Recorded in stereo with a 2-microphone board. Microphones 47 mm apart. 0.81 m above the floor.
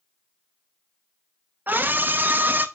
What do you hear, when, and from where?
1.7 s a scream: 40° right (ahead or behind), 0.7 m